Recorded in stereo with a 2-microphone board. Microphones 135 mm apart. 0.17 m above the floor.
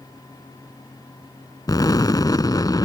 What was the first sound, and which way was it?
An explosion, 30° left (ahead or behind).